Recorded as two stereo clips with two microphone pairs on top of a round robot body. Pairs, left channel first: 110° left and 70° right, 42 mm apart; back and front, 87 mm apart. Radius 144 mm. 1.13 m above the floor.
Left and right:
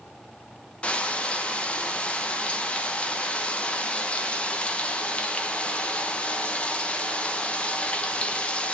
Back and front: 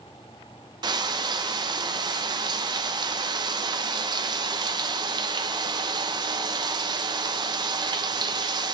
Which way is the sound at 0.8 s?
45° left.